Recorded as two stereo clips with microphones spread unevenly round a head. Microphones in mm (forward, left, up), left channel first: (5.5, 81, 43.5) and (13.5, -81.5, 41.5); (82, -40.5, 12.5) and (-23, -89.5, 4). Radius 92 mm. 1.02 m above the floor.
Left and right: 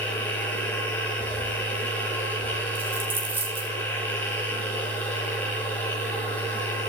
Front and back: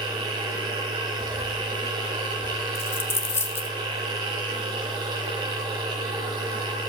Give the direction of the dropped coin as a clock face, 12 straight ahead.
1 o'clock.